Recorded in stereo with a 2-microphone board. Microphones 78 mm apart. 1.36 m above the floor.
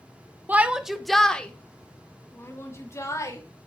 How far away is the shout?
About 1.1 m.